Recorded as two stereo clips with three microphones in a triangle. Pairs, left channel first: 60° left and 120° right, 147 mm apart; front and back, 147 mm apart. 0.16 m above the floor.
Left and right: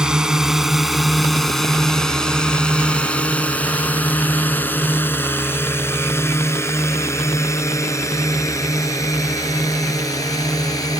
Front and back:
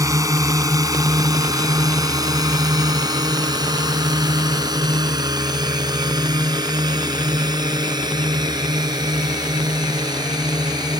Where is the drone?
165° left; by 11.0 s 120° left.